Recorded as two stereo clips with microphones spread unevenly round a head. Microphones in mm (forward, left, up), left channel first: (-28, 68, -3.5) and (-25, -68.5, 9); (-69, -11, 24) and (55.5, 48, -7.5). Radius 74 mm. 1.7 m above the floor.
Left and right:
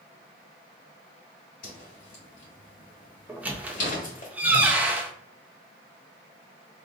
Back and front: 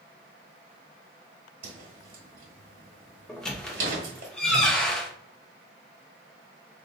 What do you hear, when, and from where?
1.6 s a whoosh: 50° left, 1.9 m
3.3 s a squeak: 125° right, 0.6 m